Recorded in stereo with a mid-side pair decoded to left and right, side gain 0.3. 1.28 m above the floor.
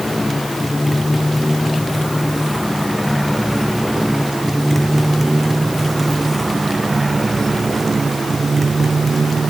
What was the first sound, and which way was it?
A motorcycle, 20° left.